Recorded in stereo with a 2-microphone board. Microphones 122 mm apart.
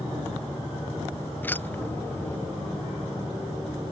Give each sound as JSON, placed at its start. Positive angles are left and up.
{"t": 1.4, "sound": "keys jangling", "side_deg": 15}